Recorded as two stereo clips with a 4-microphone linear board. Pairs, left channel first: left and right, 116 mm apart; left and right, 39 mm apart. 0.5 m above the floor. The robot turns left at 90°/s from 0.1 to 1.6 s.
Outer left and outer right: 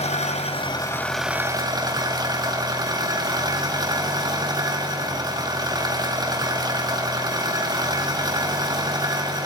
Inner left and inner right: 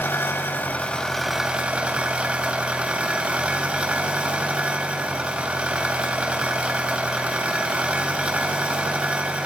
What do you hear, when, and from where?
0.0 s an engine running: 100° left, 3 m; by 9.5 s 35° right, 3 m